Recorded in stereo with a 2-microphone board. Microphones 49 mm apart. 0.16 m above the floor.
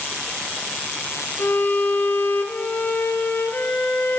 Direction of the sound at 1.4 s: 50° left (ahead or behind).